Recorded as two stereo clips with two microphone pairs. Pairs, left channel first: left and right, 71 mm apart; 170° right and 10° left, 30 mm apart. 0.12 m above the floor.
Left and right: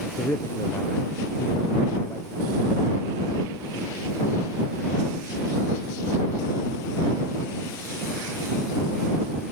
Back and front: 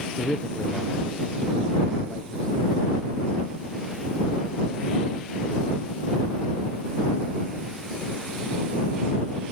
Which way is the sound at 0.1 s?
130° left.